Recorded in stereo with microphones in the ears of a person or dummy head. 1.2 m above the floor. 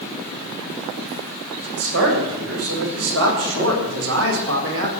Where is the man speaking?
80° right, 6 m.